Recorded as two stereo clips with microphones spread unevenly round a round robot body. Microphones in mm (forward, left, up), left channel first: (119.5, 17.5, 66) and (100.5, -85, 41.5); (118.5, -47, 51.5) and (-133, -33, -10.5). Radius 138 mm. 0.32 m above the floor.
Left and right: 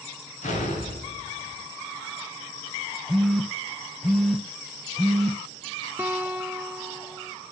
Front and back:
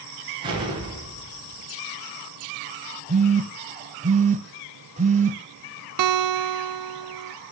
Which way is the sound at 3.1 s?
175° right.